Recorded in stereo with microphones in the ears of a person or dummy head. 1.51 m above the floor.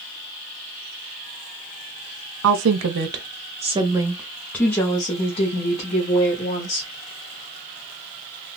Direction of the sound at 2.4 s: 70° right (ahead or behind).